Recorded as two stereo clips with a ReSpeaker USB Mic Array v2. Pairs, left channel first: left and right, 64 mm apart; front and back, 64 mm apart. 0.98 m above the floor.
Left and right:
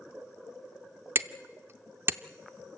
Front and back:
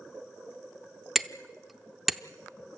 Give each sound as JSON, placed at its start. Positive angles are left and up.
{"t": 1.1, "sound": "hammering", "azimuth_deg": -95, "distance_m": 0.6}